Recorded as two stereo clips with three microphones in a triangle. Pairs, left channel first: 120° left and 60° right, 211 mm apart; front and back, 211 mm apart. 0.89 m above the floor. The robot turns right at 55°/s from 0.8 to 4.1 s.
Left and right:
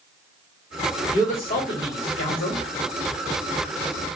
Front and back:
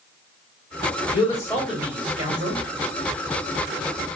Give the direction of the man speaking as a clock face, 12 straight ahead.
10 o'clock.